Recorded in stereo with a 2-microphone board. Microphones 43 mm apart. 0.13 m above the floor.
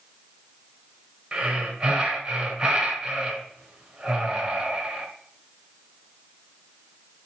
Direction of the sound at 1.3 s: 20° right (ahead or behind).